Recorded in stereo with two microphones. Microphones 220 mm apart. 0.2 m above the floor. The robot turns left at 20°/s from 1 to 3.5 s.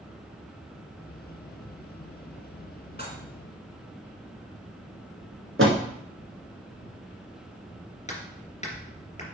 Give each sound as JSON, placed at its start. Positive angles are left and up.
{"t": 3.0, "sound": "dishes clattering", "side_deg": 45, "distance_m": 1.6}
{"t": 5.6, "sound": "a door slam", "side_deg": -65, "distance_m": 1.6}
{"t": 8.1, "sound": "hammering", "side_deg": 30, "distance_m": 2.5}